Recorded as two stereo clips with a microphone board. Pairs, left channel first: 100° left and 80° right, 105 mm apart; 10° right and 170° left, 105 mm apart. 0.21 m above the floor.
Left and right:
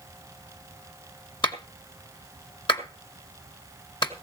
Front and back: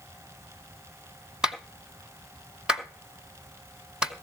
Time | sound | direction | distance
1.4 | a clap | 90° left | 1.9 m